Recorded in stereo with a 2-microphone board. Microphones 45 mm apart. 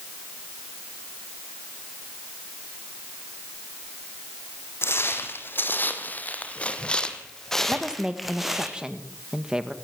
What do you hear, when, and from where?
4.8 s footsteps: 60° left (ahead or behind), 3 m; by 8.7 s 10° right (ahead or behind), 3 m
7.7 s a woman speaking: 15° right (ahead or behind), 1.9 m